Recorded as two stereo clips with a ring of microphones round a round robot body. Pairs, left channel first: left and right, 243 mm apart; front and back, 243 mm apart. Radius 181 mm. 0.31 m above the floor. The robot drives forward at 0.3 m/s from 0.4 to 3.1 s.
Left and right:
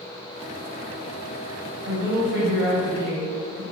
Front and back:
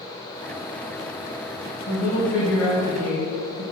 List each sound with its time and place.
1.9 s a woman speaking: 60° right, 2.0 m; by 3.6 s 75° right, 1.9 m